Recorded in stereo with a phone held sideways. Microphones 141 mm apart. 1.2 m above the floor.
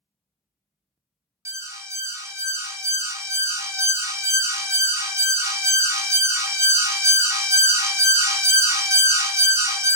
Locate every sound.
1.4 s an alarm: 20° right (ahead or behind), 0.5 m